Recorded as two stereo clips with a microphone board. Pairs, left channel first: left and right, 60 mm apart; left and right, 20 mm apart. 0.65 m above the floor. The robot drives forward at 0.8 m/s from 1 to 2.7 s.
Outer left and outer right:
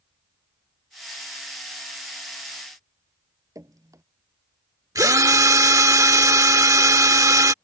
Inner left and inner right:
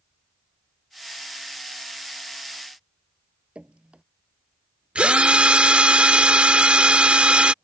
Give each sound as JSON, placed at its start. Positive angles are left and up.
{"t": 3.5, "sound": "dripping", "side_deg": -65}
{"t": 5.0, "sound": "a drill", "side_deg": -70}